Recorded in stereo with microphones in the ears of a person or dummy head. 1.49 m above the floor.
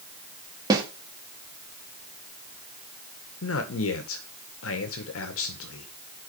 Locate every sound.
0.7 s a snare drum: 20° right (ahead or behind), 1.9 m
3.4 s a man speaking: 80° left, 1.7 m